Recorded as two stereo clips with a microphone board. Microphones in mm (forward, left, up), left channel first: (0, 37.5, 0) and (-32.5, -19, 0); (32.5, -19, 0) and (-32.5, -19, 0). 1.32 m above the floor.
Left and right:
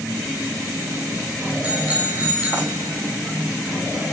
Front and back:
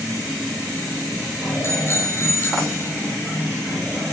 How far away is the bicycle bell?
About 8.5 m.